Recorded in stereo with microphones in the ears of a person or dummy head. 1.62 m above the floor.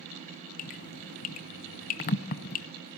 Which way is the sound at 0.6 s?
30° left (ahead or behind).